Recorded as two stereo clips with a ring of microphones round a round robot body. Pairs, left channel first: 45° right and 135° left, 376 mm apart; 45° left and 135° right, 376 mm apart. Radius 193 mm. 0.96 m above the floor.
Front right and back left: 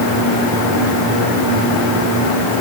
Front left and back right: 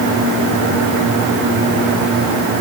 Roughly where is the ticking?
I don't hear ticking.